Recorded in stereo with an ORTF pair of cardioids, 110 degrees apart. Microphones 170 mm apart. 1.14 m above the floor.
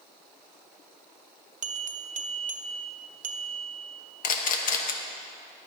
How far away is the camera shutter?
About 1.2 m.